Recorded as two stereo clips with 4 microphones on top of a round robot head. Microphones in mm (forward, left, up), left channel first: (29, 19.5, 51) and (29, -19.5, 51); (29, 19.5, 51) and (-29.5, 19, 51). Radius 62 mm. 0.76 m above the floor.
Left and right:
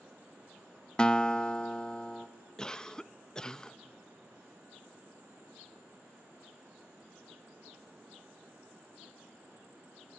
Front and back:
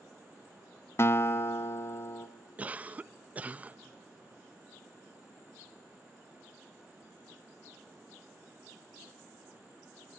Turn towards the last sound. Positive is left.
turn(degrees=145)